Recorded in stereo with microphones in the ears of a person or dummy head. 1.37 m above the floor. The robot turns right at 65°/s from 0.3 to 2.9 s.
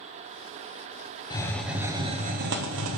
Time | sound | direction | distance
1.3 | a hiss | 160° left | 0.8 m